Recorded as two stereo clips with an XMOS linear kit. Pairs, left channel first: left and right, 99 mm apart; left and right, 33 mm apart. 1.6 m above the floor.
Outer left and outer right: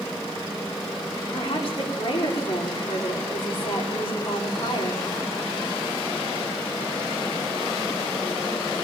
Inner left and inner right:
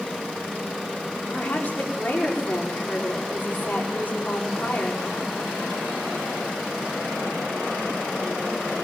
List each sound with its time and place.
1.3 s a woman speaking: 65° left (ahead or behind), 5.5 m